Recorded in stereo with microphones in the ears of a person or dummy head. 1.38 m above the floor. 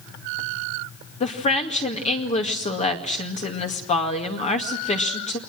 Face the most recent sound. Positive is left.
turn(degrees=35)  # may be behind; listen again after turning